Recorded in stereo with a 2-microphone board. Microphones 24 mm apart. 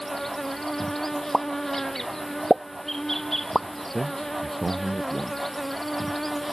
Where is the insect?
15° left (ahead or behind).